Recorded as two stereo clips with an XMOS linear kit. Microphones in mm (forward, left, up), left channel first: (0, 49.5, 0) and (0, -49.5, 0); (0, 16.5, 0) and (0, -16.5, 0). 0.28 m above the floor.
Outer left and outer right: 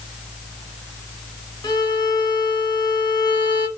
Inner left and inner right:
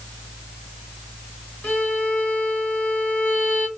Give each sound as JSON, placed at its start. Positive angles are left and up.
{"t": 1.6, "sound": "a violin", "side_deg": 50, "distance_m": 1.1}